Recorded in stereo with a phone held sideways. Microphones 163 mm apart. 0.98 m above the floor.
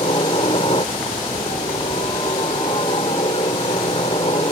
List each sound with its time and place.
0.0 s a helicopter: 35° left (ahead or behind)